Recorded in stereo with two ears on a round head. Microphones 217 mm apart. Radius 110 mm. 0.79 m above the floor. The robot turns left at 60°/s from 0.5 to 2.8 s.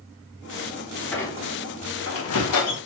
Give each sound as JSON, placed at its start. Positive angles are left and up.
{"t": 1.1, "sound": "a squeak", "side_deg": 5, "distance_m": 0.9}